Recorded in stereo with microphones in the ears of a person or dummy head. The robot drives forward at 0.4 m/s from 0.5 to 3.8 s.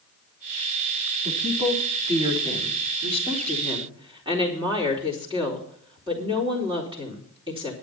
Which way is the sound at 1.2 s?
35° right (ahead or behind).